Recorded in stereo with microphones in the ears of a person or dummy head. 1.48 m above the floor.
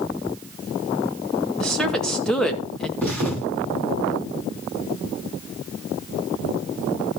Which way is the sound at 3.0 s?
5° left (ahead or behind).